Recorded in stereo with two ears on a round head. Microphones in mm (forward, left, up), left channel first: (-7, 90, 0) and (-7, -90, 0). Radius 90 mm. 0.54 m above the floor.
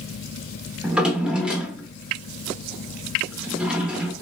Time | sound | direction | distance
0.8 | a drawer | 5° right (ahead or behind) | 0.6 m